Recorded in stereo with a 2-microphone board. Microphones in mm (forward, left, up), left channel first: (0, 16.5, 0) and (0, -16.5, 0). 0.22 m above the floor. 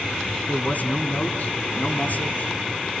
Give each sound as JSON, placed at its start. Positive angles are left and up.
{"t": 0.5, "sound": "a man speaking", "side_deg": 55, "distance_m": 2.0}